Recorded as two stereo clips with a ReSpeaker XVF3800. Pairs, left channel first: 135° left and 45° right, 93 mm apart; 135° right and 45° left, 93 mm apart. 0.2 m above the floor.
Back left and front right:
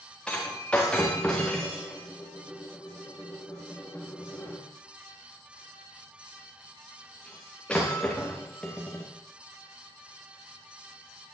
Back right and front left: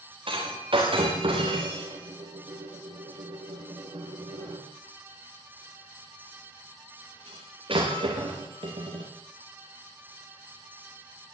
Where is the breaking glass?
55° left, 9 m.